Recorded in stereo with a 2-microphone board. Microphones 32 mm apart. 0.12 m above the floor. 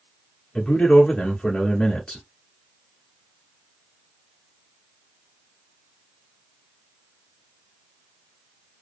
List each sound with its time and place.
0.6 s a man speaking: 20° left (ahead or behind), 1.1 m